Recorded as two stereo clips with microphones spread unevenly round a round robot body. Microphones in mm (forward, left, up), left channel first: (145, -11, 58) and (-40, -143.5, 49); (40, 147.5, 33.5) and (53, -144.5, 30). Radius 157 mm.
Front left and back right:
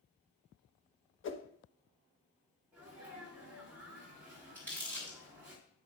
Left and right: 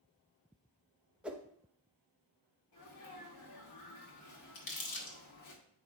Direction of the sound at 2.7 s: 135° left.